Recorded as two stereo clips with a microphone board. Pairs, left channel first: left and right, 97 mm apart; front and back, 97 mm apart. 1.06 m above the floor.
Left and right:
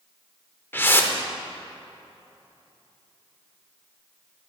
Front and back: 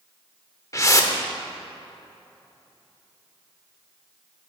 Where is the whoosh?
35° left, 0.8 m.